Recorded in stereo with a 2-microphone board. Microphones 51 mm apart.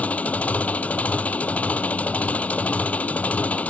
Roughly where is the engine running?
Left.